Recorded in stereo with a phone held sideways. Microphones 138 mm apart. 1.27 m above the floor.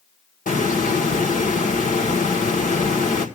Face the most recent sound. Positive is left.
turn(degrees=70)  # may be behind; listen again after turning